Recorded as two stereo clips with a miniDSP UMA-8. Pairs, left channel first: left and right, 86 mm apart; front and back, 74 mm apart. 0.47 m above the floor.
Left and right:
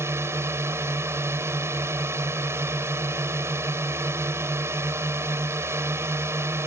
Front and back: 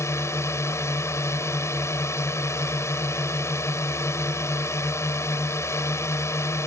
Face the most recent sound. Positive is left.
turn(degrees=-40)